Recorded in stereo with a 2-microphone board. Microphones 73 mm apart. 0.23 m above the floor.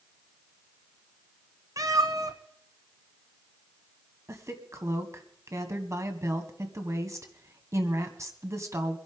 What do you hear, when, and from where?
1.8 s a cat meowing: 55° right (ahead or behind), 1.2 m
4.3 s a woman speaking: 45° right (ahead or behind), 1.8 m